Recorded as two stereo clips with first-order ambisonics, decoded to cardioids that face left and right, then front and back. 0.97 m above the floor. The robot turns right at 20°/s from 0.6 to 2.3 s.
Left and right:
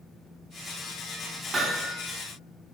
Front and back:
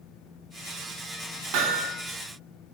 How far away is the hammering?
About 2 m.